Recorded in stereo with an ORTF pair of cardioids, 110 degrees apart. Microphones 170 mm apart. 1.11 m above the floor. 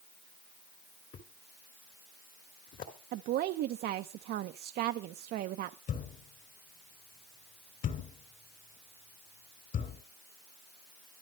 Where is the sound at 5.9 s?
50° left, 3 m.